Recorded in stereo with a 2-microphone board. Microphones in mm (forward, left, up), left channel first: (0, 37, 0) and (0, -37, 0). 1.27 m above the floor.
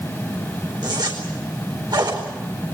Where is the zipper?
65° right (ahead or behind), 4 m.